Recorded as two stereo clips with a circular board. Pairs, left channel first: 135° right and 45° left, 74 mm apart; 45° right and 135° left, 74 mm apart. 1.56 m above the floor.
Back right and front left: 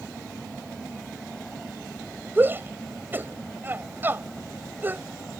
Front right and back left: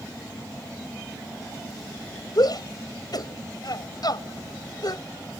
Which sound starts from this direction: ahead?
A shout, at 2.4 s.